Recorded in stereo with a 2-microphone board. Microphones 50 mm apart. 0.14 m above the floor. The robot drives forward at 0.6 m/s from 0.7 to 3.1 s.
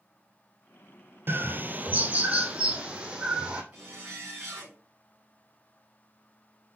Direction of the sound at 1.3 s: 55° right (ahead or behind).